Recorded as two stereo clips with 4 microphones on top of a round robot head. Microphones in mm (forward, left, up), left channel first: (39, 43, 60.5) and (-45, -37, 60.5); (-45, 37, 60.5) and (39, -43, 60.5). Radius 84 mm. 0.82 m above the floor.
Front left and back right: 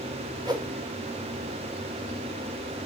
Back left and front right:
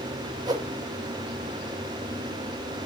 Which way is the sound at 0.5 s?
90° right.